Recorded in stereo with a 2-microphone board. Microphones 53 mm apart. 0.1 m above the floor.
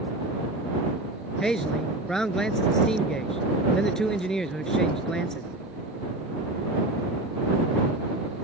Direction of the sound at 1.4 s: 10° left (ahead or behind).